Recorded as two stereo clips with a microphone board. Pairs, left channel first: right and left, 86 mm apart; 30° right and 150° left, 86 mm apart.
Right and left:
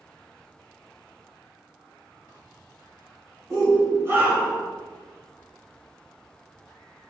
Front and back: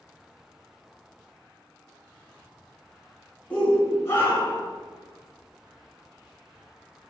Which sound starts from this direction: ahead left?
A shout, at 3.5 s.